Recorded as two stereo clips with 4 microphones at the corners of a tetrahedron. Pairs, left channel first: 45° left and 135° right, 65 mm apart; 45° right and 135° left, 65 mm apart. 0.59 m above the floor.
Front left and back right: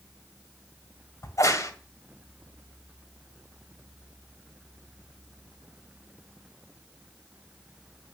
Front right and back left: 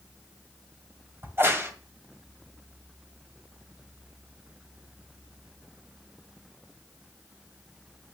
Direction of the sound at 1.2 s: 80° left.